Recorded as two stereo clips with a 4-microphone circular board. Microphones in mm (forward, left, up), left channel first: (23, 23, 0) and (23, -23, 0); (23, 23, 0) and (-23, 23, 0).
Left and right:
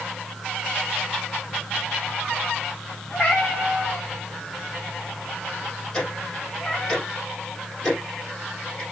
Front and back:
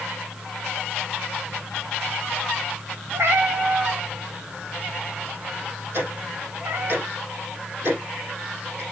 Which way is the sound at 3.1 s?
160° left.